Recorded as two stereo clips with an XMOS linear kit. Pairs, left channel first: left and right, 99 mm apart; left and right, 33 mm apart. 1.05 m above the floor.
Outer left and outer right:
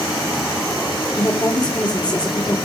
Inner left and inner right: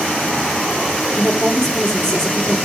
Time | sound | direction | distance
1.1 | a woman speaking | 35° left (ahead or behind) | 3 m